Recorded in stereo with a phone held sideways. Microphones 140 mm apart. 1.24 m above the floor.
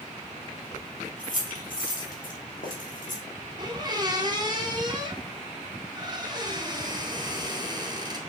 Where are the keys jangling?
55° left (ahead or behind), 2.5 m; by 3.2 s 65° left (ahead or behind), 3 m.